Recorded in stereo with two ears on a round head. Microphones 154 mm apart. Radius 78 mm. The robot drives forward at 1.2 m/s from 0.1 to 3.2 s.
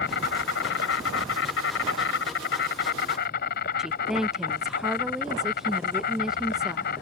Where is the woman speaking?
5° right (ahead or behind).